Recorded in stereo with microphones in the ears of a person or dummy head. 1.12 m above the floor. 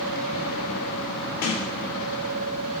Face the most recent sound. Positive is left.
turn(degrees=60)  # may be behind; listen again after turning